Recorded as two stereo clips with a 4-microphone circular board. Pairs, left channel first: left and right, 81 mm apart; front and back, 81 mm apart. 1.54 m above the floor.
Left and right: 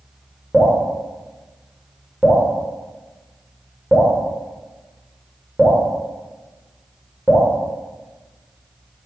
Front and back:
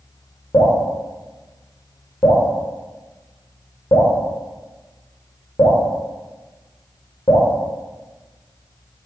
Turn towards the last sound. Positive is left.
turn(degrees=-15)